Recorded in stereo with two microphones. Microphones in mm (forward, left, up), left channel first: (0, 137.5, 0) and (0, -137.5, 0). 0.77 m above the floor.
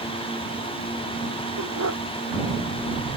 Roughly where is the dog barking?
Right.